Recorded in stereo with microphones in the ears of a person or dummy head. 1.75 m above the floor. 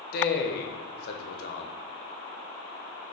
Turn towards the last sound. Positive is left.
turn(degrees=55)  # may be behind; listen again after turning